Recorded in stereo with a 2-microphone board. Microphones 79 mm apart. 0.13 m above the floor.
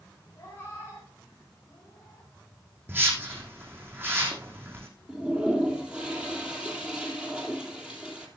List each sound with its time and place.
0.4 s a cat meowing: 30° left (ahead or behind), 5.5 m
2.9 s a whoosh: 25° right (ahead or behind), 4 m
5.1 s a toilet flushing: 10° right (ahead or behind), 2.5 m